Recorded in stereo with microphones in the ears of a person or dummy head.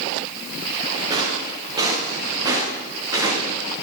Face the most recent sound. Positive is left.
turn(degrees=-15)  # may be behind; listen again after turning